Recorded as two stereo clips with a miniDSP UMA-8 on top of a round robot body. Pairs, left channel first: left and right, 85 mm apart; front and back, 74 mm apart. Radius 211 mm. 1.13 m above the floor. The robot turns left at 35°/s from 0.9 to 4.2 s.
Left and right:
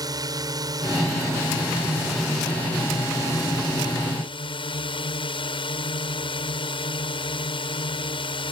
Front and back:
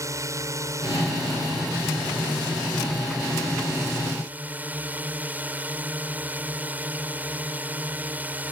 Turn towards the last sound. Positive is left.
turn(degrees=110)